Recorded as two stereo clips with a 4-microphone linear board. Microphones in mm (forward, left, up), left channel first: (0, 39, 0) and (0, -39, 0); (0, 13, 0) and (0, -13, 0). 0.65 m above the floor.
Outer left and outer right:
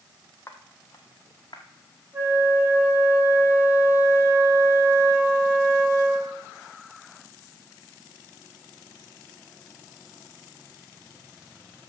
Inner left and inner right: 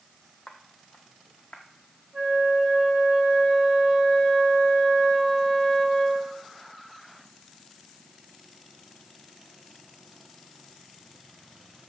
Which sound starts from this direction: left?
Footsteps, at 0.5 s.